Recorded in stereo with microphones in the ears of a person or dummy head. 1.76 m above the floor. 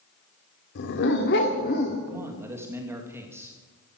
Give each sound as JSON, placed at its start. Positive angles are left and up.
{"t": 0.8, "sound": "a dog barking", "side_deg": 55, "distance_m": 2.0}
{"t": 2.1, "sound": "a man speaking", "side_deg": -15, "distance_m": 2.5}